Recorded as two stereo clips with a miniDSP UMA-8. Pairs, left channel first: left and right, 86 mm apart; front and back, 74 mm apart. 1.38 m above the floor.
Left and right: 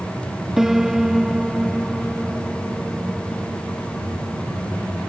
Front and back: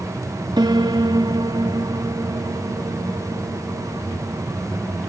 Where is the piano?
175° right.